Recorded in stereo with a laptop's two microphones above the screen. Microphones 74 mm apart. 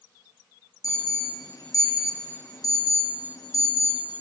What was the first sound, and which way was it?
An alarm, 50° left (ahead or behind).